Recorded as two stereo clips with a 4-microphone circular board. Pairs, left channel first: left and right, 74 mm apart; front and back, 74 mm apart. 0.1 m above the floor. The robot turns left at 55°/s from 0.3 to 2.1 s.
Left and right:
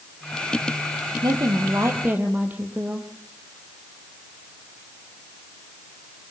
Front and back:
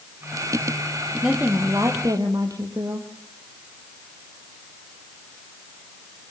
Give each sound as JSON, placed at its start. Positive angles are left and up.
{"t": 1.2, "sound": "a woman speaking", "azimuth_deg": -105, "distance_m": 3.5}